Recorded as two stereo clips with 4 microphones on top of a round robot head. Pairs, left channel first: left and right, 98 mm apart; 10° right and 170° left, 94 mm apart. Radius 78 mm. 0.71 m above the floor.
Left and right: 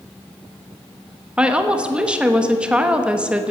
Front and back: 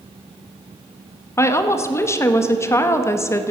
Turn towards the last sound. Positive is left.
turn(degrees=-20)